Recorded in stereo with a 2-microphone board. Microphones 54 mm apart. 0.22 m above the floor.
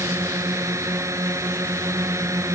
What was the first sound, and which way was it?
A drone, 65° right (ahead or behind).